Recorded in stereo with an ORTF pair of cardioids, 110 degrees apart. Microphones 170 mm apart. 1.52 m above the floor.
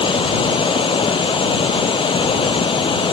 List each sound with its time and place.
0.0 s running water: 30° left